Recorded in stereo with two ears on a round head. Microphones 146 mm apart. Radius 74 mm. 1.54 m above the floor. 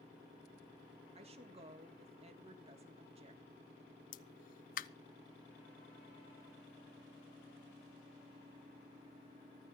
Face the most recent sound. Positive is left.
turn(degrees=50)  # may be behind; listen again after turning